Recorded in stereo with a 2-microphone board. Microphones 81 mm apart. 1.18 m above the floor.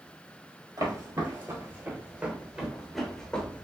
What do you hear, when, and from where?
0.8 s footsteps: 45° right (ahead or behind), 1.6 m; by 3.6 s 15° left (ahead or behind), 1.2 m